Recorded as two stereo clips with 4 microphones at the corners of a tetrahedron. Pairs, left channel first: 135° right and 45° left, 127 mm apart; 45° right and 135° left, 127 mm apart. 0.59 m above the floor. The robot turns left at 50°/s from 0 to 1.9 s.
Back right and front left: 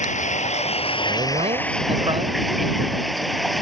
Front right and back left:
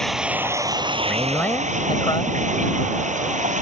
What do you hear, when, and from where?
0.0 s running water: 130° right; by 3.6 s 135° left
1.1 s a man speaking: 50° left; by 2.4 s 5° left